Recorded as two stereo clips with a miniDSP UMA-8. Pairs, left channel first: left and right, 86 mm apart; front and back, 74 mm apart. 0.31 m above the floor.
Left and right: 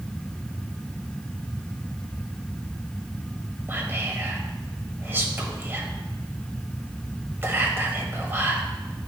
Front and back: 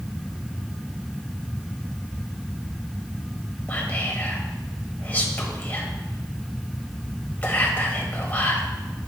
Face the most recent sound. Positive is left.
turn(degrees=-50)